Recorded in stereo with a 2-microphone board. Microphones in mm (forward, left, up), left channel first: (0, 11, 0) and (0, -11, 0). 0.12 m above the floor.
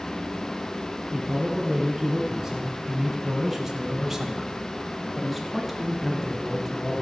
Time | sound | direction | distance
1.1 | a man speaking | 20° right (ahead or behind) | 1.9 m